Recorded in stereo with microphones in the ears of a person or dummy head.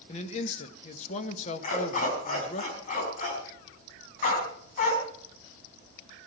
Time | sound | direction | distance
0.1 | a man speaking | 40° left (ahead or behind) | 1.4 m
1.6 | a dog barking | 45° left (ahead or behind) | 4.5 m